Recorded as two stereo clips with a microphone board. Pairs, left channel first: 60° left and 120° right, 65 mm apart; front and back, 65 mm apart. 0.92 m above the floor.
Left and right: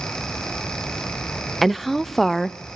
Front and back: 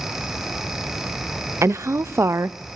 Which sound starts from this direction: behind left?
A woman speaking, at 1.6 s.